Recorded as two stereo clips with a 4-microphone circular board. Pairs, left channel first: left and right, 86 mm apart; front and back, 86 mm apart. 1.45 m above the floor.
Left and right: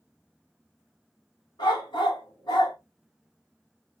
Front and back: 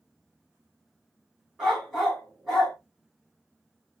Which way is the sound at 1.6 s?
85° left.